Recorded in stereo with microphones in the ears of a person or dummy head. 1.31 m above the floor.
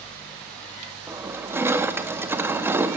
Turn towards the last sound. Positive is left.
turn(degrees=-15)  # may be behind; listen again after turning